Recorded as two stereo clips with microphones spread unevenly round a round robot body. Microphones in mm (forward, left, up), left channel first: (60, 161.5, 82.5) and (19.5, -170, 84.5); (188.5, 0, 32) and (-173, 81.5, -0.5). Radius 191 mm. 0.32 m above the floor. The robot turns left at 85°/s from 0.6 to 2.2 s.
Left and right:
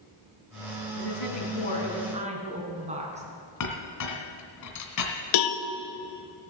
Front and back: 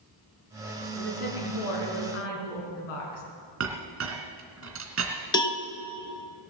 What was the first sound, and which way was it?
A woman speaking, 80° left.